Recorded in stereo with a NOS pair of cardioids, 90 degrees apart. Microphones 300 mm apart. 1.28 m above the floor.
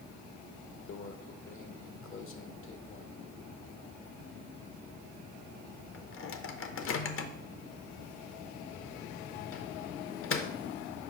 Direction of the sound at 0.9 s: 45° left.